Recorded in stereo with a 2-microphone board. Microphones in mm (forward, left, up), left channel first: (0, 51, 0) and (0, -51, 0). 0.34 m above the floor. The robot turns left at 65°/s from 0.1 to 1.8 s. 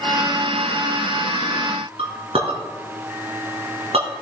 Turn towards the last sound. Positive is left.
turn(degrees=-75)  # may be behind; listen again after turning